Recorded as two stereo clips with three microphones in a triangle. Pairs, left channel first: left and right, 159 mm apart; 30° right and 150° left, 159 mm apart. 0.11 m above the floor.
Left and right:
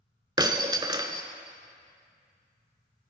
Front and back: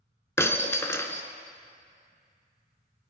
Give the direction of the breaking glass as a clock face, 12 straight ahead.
3 o'clock.